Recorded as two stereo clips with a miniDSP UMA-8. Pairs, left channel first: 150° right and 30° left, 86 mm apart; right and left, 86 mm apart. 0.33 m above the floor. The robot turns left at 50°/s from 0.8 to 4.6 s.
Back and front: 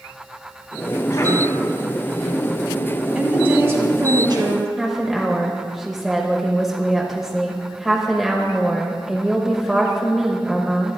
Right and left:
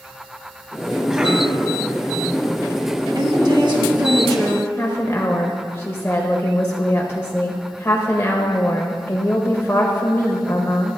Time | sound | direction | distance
1.1 | a cough | straight behind | 2 m
3.1 | a woman speaking | 115° left | 2 m
4.8 | a woman speaking | 60° right | 1.0 m